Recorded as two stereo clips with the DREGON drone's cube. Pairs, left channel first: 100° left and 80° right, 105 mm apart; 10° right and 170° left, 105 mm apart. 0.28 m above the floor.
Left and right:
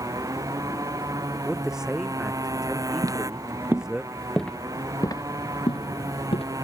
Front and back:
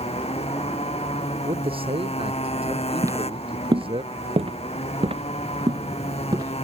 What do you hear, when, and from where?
0.0 s a motorcycle: 20° right
1.4 s a man speaking: 165° right
3.0 s footsteps: 130° right; by 6.5 s 120° left